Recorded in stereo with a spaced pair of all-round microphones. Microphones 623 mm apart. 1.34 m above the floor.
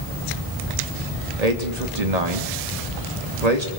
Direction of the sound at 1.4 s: 85° right.